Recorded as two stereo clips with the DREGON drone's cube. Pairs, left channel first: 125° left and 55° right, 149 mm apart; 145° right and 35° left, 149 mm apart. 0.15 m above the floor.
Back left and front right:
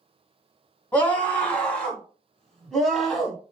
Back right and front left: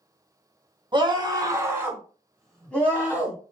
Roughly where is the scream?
Ahead left.